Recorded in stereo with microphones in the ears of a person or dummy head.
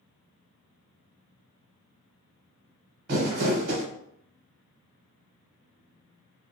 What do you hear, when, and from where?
3.1 s crumpling: 50° right (ahead or behind), 0.9 m